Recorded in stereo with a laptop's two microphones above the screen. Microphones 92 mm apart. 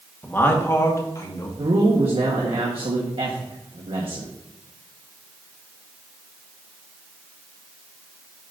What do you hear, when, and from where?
0.2 s a man speaking: 20° left (ahead or behind), 1.3 m; by 1.5 s 40° left (ahead or behind), 1.8 m
1.6 s a man speaking: 75° right (ahead or behind), 1.4 m